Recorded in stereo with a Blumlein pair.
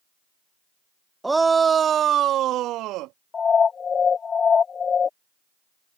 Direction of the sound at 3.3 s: 20° left.